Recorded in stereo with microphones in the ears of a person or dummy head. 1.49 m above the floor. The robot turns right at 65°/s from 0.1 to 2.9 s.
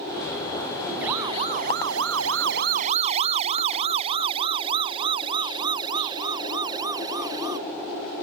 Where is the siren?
5° right (ahead or behind); by 7.6 s 25° right (ahead or behind).